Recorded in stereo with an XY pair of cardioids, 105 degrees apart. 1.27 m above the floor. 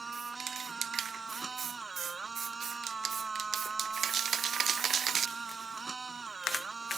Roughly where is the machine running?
Ahead right.